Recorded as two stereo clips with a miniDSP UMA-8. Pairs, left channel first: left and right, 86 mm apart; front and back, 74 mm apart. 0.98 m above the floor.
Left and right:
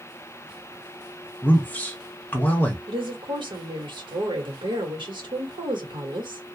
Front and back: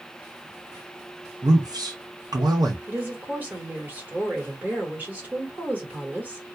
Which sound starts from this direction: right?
A woman speaking, at 2.9 s.